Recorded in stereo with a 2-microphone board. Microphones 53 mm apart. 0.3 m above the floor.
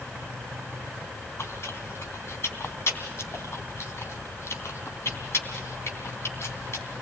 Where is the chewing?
55° left (ahead or behind), 3 m.